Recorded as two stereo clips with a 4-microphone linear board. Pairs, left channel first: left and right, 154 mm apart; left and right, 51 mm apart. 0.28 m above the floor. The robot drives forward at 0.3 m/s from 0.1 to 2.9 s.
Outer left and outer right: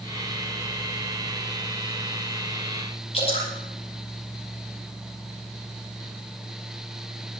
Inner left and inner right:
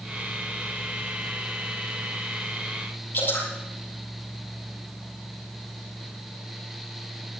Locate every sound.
3.1 s dripping: 40° left (ahead or behind), 9 m